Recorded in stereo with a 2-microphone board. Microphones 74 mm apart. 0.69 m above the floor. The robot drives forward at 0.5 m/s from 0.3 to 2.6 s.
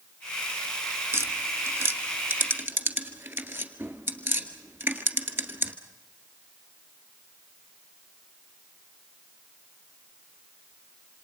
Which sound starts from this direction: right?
Tapping, at 1.1 s.